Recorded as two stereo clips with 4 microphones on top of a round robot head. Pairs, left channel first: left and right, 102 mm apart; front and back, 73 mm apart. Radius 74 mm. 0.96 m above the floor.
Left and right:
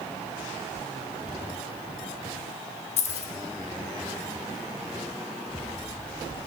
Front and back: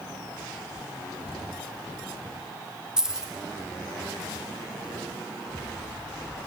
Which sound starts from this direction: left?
Keys jangling, at 3.0 s.